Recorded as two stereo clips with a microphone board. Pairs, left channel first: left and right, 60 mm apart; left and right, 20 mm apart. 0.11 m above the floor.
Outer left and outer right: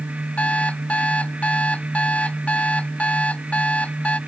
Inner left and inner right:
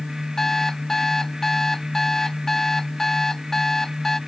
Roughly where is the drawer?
No drawer in this recording.